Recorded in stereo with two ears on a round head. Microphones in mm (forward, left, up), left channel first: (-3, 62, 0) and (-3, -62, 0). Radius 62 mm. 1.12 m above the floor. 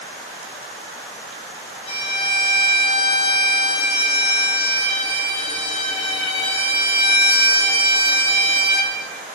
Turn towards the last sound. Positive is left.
turn(degrees=40)  # may be behind; listen again after turning